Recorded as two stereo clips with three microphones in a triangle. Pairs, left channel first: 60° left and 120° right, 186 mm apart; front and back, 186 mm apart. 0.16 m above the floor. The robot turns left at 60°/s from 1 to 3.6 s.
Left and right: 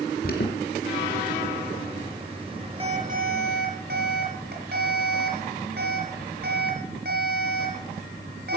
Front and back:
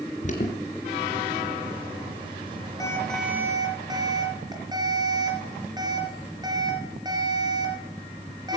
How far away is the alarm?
About 3 m.